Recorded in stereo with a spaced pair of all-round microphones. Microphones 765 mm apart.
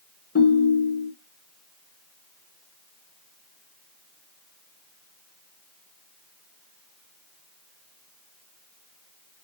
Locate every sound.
0.3 s a ringtone: 20° left (ahead or behind), 0.8 m